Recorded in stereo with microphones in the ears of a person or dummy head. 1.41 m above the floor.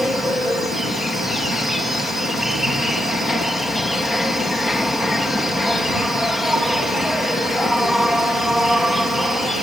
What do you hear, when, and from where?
0.0 s an insect: centre (ahead or behind)